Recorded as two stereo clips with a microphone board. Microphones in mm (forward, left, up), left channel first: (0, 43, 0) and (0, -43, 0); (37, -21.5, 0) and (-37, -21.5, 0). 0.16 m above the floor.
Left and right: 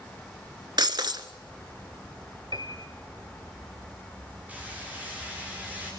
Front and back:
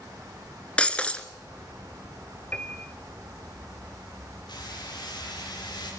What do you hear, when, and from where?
0.8 s breaking glass: 75° right, 1.1 m
2.5 s a piano: 70° right, 1.0 m
4.5 s hammering: 15° right, 8.5 m